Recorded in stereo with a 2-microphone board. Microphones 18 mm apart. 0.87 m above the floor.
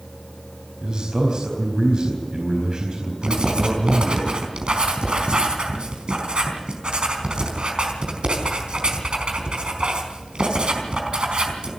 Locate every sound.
0.8 s a man speaking: 45° right (ahead or behind), 4.5 m
3.2 s writing: 65° right (ahead or behind), 4.5 m